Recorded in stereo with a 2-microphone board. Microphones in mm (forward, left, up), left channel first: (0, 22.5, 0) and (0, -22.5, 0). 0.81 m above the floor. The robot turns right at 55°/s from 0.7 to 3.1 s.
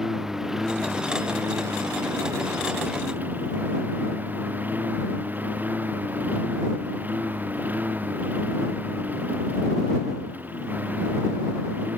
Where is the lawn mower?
170° right; by 12.0 s 40° right.